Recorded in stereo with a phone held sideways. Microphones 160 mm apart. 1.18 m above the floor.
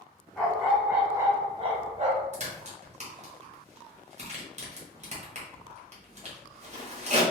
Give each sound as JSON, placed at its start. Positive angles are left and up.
{"t": 0.4, "sound": "a dog barking", "side_deg": 5, "distance_m": 0.9}
{"t": 2.3, "sound": "a crack", "side_deg": -45, "distance_m": 1.0}